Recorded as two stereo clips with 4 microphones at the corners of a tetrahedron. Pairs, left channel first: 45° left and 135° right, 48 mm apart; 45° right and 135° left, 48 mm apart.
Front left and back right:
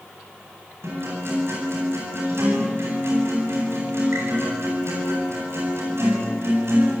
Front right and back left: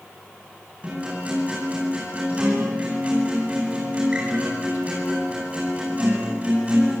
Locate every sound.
0.8 s a guitar: 165° right, 9 m